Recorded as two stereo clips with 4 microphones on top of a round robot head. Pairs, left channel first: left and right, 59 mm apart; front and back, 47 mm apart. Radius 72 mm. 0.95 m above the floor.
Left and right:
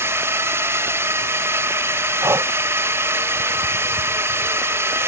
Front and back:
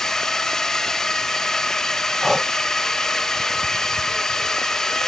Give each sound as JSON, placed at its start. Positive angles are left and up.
{"t": 0.0, "sound": "a drone", "azimuth_deg": -75}
{"t": 2.2, "sound": "breathing", "azimuth_deg": -95}